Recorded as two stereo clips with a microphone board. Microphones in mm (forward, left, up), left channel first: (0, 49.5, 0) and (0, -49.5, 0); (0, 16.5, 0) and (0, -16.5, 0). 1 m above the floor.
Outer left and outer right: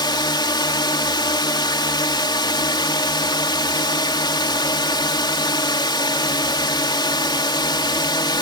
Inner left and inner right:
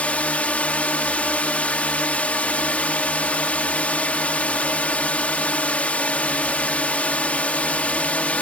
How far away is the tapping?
I don't hear tapping.